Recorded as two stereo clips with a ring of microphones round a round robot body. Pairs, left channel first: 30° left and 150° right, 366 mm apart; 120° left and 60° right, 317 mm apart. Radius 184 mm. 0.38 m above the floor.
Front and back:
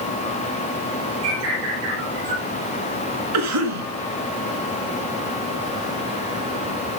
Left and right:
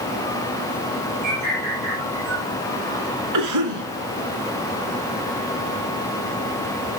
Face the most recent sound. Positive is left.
turn(degrees=-105)